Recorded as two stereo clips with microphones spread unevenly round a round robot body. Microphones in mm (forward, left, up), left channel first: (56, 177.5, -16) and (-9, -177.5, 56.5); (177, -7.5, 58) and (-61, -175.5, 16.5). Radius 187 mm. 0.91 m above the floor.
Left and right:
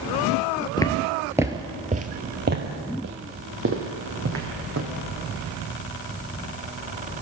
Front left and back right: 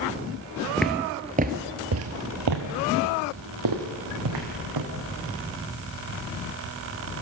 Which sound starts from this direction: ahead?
Footsteps, at 0.8 s.